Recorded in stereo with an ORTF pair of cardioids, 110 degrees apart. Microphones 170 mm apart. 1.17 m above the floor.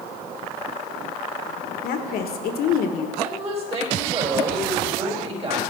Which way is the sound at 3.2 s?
40° right.